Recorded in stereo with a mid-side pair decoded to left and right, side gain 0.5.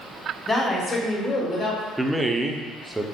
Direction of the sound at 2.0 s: 10° right.